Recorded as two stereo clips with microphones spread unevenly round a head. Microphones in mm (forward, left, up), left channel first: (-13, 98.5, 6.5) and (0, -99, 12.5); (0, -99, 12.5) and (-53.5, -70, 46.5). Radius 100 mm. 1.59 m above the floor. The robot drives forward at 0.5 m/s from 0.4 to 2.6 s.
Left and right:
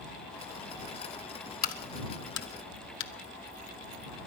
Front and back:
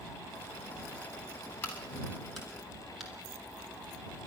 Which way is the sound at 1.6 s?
45° left.